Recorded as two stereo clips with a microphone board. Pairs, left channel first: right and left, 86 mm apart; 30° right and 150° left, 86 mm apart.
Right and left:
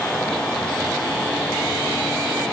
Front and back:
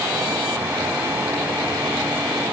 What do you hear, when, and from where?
Only background noise.